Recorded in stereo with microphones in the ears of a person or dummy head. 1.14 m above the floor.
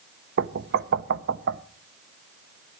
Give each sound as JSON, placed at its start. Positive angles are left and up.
{"t": 0.4, "sound": "knocking", "side_deg": -55, "distance_m": 0.7}